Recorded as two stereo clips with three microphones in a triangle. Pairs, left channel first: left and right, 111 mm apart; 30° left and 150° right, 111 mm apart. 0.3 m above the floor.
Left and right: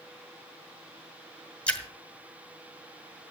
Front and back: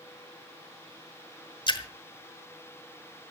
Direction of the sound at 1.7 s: 15° left.